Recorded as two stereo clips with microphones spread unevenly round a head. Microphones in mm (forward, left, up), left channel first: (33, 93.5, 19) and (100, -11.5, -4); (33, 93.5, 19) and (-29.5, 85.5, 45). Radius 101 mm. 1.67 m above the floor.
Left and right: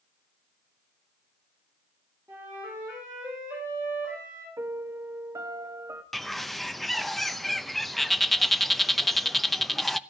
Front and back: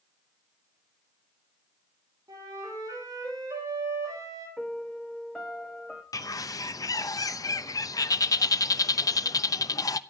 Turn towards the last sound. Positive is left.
turn(degrees=35)